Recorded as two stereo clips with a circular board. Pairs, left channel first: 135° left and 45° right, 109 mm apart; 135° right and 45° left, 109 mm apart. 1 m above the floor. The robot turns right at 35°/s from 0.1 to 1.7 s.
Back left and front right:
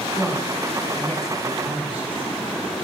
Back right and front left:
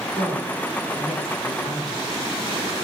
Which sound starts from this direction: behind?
A woman speaking, at 0.1 s.